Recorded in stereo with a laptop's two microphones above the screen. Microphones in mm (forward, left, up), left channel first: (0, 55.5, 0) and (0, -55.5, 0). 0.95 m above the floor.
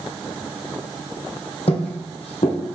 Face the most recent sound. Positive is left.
turn(degrees=60)  # may be behind; listen again after turning